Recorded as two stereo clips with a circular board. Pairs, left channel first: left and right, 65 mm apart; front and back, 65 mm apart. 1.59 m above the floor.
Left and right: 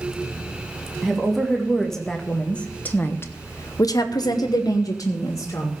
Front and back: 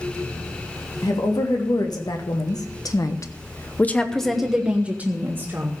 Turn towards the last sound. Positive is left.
turn(degrees=125)